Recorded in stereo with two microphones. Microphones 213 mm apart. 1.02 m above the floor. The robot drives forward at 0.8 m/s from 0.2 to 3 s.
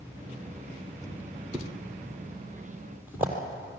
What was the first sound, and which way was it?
A thud, 10° right (ahead or behind).